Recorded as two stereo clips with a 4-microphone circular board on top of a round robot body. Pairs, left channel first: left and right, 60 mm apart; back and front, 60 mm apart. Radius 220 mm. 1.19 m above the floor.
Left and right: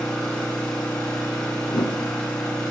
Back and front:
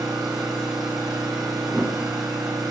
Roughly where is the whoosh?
Left.